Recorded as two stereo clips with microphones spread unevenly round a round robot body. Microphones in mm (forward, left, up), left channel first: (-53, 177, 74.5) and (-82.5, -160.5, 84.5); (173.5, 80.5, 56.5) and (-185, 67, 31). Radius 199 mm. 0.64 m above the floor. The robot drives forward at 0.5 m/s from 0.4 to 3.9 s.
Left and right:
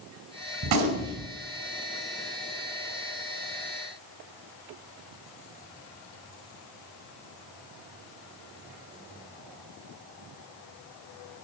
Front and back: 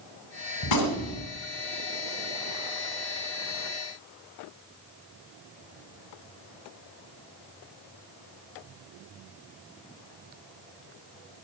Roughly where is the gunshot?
Ahead right.